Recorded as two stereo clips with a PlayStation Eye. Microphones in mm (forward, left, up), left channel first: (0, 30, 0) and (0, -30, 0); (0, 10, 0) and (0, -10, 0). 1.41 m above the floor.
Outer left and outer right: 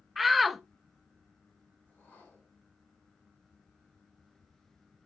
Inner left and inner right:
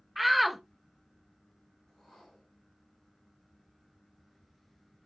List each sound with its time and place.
0.2 s a shout: centre (ahead or behind), 0.6 m
1.9 s a whoosh: 25° left (ahead or behind), 5.5 m